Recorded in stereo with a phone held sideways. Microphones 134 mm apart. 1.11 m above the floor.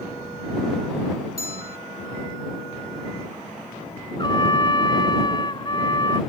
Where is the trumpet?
35° left (ahead or behind).